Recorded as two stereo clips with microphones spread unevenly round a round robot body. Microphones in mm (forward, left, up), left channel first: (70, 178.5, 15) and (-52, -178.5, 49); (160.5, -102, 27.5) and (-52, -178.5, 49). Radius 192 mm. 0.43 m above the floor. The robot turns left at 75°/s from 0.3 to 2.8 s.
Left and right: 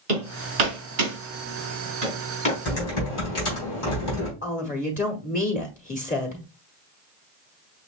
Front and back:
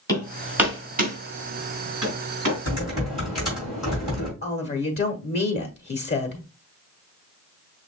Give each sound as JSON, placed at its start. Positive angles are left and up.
{"t": 0.1, "sound": "hammering", "azimuth_deg": -55, "distance_m": 3.0}
{"t": 2.6, "sound": "typing on a keyboard", "azimuth_deg": 130, "distance_m": 3.0}
{"t": 4.4, "sound": "a woman speaking", "azimuth_deg": 15, "distance_m": 1.1}